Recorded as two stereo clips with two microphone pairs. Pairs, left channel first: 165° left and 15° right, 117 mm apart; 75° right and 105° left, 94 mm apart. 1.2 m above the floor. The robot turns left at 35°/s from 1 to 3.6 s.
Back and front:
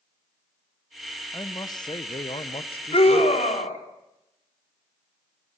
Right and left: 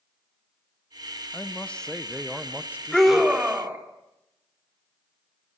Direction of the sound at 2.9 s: 160° right.